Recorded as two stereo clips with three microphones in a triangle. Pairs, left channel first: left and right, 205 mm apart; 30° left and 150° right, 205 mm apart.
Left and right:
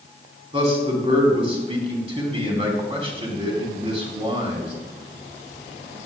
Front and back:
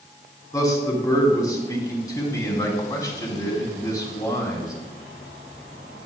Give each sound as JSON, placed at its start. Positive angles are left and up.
{"t": 0.5, "sound": "a man speaking", "azimuth_deg": -40, "distance_m": 2.5}